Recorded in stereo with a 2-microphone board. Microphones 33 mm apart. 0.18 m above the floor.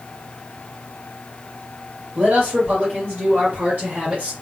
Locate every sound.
2.1 s a man speaking: 70° right (ahead or behind), 2.5 m; by 4.3 s 45° right (ahead or behind), 2.0 m